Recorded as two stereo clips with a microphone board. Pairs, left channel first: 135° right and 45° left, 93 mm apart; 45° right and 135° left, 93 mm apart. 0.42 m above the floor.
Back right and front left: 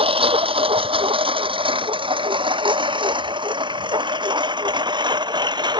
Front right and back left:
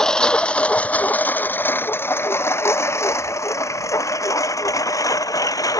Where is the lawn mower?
40° left; by 5.8 s 5° left.